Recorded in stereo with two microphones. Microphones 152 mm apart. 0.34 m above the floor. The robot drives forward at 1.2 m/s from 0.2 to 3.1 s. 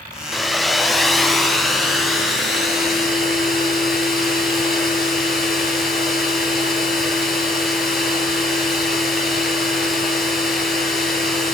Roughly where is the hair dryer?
Centre.